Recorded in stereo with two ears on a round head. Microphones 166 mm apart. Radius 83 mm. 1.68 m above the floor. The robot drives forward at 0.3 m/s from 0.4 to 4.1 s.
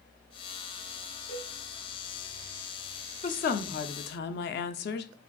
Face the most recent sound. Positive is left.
turn(degrees=60)  # may be behind; listen again after turning